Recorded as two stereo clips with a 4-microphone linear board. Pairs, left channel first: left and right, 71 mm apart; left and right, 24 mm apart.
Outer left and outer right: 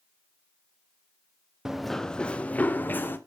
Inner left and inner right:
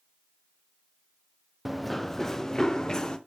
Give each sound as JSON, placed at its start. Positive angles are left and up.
{"t": 1.6, "sound": "running footsteps", "side_deg": -5, "distance_m": 0.6}